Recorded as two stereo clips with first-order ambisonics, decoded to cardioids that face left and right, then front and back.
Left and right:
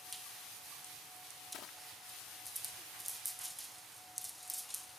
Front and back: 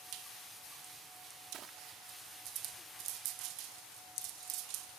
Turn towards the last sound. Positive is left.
turn(degrees=130)